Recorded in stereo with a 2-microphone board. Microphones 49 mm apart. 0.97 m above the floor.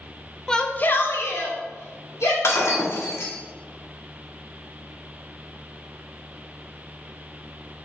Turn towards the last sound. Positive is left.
turn(degrees=65)  # may be behind; listen again after turning